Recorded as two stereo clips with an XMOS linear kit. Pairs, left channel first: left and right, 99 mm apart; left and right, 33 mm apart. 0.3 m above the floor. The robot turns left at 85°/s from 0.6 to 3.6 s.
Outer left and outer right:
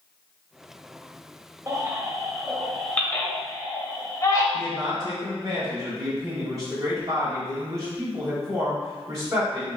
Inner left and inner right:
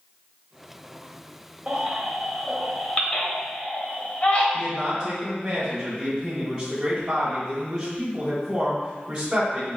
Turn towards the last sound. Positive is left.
turn(degrees=-35)  # may be behind; listen again after turning